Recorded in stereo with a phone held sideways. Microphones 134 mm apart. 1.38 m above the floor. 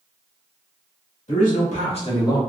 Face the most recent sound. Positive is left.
turn(degrees=20)  # may be behind; listen again after turning